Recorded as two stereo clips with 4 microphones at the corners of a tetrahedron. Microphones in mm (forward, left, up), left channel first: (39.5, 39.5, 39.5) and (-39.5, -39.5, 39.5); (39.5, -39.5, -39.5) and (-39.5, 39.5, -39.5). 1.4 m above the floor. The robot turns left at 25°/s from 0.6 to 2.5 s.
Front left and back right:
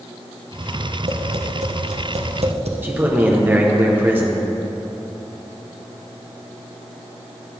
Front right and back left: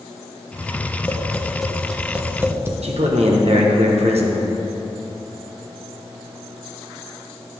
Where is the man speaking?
150° left, 1.3 m.